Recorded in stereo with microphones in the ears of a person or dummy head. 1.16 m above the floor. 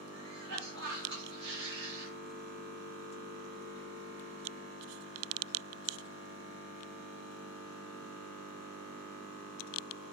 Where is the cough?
75° right (ahead or behind), 1.8 m.